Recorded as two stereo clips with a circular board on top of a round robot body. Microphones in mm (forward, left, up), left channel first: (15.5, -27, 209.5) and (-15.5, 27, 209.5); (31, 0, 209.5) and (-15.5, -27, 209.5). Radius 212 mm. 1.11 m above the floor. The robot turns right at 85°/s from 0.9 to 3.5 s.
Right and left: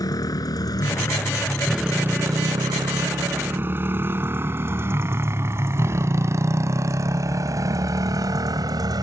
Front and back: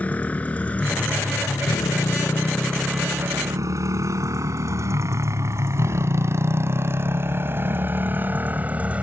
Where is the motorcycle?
35° right; by 9.0 s 140° left.